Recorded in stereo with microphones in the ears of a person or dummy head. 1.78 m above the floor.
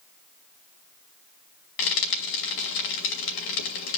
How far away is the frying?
About 2.5 m.